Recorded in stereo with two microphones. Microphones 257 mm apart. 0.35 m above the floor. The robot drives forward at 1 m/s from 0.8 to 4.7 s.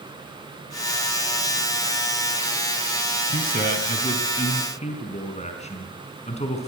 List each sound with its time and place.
3.3 s a man speaking: 35° left (ahead or behind), 3.5 m; by 6.7 s 25° left (ahead or behind), 4.5 m